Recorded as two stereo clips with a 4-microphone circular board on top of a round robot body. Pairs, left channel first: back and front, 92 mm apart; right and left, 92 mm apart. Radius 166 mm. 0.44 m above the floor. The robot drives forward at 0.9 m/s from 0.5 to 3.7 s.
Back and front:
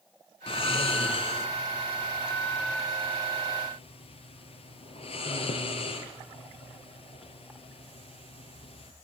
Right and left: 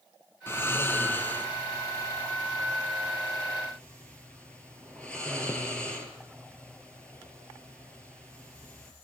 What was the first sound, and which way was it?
Snoring, 155° right.